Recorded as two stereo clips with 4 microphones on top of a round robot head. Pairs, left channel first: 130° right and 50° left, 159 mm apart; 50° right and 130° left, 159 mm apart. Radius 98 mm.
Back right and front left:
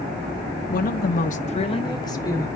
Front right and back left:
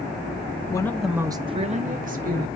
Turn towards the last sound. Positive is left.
turn(degrees=155)